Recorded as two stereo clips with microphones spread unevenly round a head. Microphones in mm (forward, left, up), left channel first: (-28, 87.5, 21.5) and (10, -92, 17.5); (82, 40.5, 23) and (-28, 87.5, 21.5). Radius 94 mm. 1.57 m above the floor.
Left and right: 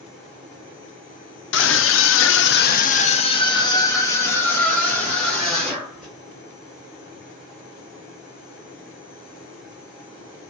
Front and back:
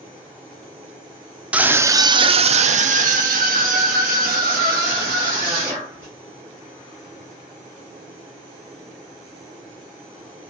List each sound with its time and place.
1.5 s a scream: 75° left, 0.7 m; by 6.1 s 170° right, 2.5 m